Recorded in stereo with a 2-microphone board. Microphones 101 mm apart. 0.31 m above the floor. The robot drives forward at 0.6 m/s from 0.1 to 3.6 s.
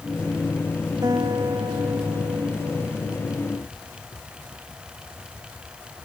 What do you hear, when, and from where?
1.0 s a guitar: 40° right (ahead or behind)